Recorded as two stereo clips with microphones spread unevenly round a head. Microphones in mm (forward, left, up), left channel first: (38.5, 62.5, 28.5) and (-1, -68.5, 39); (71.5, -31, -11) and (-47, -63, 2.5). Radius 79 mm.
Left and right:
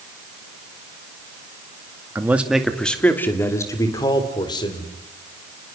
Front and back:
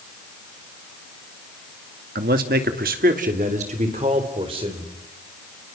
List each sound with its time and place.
2.1 s a man speaking: straight behind, 1.9 m; by 4.9 s 135° left, 4.5 m